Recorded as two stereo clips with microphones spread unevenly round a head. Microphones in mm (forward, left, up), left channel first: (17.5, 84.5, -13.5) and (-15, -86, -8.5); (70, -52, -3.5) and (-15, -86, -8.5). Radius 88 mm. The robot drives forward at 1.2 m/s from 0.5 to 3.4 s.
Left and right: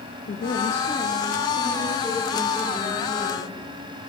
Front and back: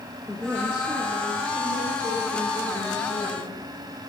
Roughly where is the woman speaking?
Behind left.